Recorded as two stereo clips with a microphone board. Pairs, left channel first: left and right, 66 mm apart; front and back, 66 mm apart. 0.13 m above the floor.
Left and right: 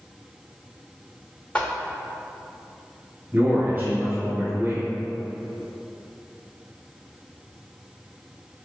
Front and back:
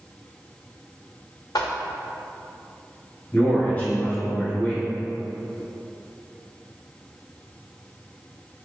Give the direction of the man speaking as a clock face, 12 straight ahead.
2 o'clock.